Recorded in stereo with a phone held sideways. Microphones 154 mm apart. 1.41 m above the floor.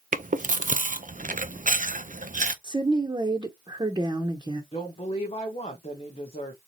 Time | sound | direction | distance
0.1 | chewing | 55° right (ahead or behind) | 0.6 m
2.6 | a woman speaking | 25° right (ahead or behind) | 0.8 m
4.7 | a woman speaking | 40° left (ahead or behind) | 1.1 m